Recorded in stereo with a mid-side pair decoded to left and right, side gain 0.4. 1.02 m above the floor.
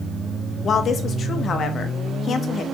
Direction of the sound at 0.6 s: 60° left.